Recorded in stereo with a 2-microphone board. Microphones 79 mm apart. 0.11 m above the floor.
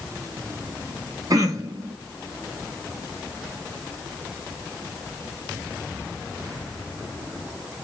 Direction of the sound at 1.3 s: 50° right (ahead or behind).